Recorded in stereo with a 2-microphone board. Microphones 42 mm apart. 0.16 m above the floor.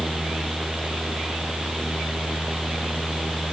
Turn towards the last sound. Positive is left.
No sound to turn to.